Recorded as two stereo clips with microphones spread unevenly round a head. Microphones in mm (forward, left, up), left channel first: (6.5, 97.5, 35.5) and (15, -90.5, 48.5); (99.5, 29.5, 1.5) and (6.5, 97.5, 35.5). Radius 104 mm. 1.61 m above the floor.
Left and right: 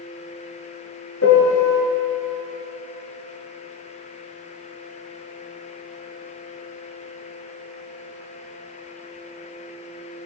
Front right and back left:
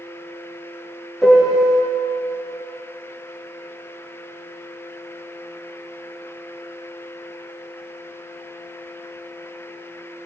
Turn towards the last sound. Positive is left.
turn(degrees=70)